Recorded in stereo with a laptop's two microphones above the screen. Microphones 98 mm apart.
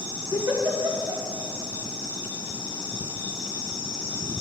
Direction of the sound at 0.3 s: 35° right (ahead or behind).